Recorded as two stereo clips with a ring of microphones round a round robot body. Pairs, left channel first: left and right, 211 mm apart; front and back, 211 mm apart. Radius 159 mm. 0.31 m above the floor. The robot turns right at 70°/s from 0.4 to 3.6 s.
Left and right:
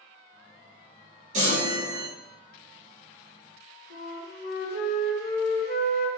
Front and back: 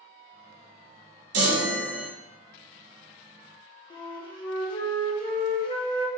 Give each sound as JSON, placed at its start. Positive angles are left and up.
{"t": 1.3, "sound": "a chime", "azimuth_deg": -160, "distance_m": 0.9}
{"t": 3.9, "sound": "a flute", "azimuth_deg": 65, "distance_m": 1.2}